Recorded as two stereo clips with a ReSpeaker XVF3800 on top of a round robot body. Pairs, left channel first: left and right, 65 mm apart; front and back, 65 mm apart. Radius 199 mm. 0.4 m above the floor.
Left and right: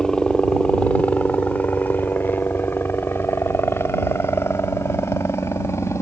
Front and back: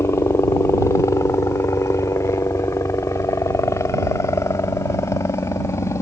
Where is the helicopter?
15° left; by 6.0 s 45° left.